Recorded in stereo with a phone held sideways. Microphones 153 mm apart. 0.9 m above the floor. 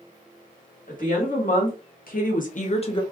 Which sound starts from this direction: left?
A woman speaking, at 0.9 s.